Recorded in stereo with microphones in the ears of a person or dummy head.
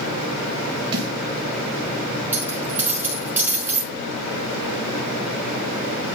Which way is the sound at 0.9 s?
35° right (ahead or behind).